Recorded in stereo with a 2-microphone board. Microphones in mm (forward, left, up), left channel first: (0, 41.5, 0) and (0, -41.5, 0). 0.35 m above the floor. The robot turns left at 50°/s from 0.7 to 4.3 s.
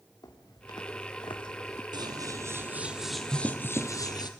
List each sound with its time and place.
0.2 s footsteps: 55° left (ahead or behind), 3 m; by 1.8 s 30° left (ahead or behind), 0.7 m
1.9 s scissors: 120° right, 1.7 m; by 4.3 s 125° left, 1.7 m